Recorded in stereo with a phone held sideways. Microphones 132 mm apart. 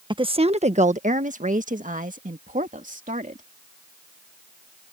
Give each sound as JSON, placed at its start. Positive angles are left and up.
{"t": 0.1, "sound": "a woman speaking", "side_deg": -40}